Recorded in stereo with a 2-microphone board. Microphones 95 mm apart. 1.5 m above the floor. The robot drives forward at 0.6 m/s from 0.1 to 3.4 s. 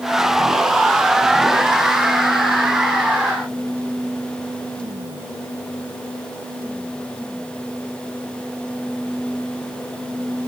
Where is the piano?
I don't hear a piano.